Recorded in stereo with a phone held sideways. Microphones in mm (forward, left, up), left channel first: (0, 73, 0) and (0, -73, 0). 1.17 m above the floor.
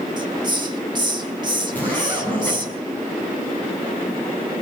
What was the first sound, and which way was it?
A hiss, 30° right (ahead or behind).